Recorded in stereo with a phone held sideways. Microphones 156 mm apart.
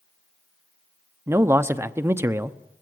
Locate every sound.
1.3 s a man speaking: 15° right (ahead or behind), 0.7 m